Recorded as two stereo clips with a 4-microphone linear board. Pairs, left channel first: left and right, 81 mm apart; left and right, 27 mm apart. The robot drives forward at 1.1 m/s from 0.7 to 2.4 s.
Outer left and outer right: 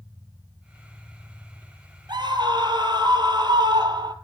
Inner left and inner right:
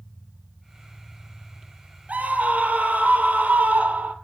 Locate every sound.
2.1 s a scream: 65° right (ahead or behind), 2.5 m